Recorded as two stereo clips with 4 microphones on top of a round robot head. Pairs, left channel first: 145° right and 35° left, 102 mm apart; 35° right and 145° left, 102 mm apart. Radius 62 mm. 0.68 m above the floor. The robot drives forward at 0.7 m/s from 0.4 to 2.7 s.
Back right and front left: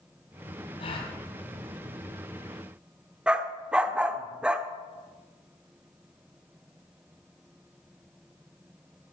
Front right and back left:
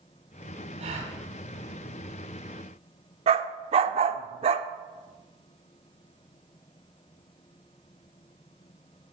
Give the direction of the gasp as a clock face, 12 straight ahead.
6 o'clock.